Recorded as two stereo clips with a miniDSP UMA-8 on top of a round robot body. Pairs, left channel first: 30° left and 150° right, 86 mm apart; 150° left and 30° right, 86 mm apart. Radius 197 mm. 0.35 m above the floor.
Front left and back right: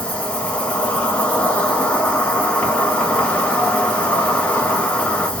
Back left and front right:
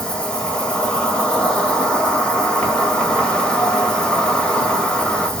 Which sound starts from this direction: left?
An insect, at 0.0 s.